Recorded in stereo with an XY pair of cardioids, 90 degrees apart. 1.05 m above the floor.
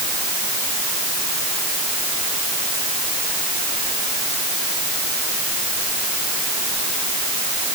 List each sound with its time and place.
Only background noise.